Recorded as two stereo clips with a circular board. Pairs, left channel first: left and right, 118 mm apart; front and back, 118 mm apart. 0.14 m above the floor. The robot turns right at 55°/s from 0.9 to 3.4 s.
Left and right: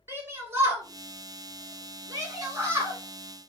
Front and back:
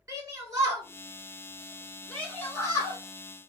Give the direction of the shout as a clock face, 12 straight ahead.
5 o'clock.